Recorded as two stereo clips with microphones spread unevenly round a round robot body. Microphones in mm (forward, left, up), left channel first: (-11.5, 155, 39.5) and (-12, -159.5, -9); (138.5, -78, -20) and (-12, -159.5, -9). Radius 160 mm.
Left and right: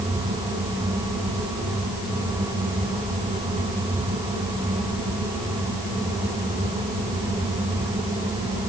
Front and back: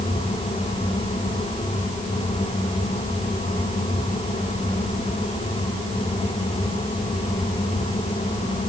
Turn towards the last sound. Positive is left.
No sound to turn to.